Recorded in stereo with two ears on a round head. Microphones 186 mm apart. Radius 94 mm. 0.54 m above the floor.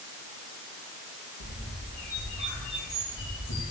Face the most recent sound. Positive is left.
turn(degrees=55)  # may be behind; listen again after turning